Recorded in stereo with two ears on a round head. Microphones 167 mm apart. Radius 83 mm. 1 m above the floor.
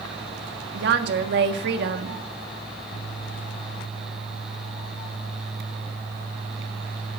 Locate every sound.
0.7 s a woman speaking: 60° right (ahead or behind), 1.5 m